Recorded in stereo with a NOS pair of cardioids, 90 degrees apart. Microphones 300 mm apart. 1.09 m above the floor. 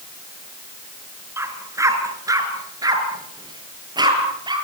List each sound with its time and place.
1.4 s a dog barking: 10° right, 5 m; by 4.5 s 15° right, 8.5 m